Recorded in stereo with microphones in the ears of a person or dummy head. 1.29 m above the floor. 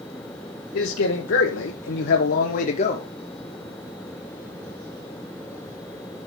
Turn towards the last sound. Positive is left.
turn(degrees=25)  # may be behind; listen again after turning